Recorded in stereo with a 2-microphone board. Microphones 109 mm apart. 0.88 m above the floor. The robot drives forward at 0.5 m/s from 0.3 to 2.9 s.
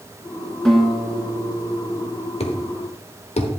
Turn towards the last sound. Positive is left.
turn(degrees=75)  # may be behind; listen again after turning